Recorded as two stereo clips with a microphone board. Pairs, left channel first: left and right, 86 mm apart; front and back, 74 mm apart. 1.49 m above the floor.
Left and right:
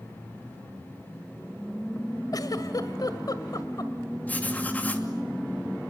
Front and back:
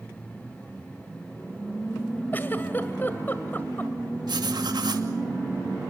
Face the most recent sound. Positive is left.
turn(degrees=160)